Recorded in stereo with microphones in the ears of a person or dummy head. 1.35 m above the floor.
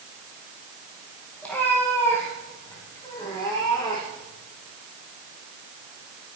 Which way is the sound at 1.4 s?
5° left (ahead or behind).